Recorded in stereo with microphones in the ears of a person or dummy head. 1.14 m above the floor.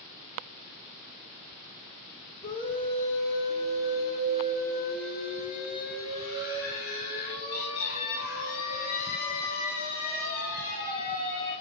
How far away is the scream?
About 1.5 m.